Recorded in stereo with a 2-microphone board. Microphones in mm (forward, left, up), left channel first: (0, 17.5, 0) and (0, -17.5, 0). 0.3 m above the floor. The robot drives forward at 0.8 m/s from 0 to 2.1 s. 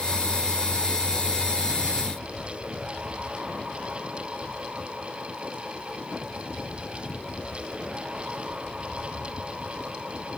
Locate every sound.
Only background noise.